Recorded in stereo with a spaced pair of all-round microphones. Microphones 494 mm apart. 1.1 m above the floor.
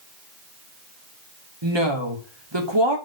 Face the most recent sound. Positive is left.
turn(degrees=-60)  # may be behind; listen again after turning